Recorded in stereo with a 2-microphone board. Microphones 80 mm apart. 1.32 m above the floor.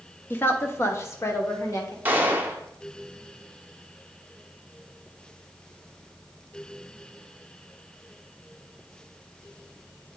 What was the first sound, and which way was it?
A woman speaking, 25° left (ahead or behind).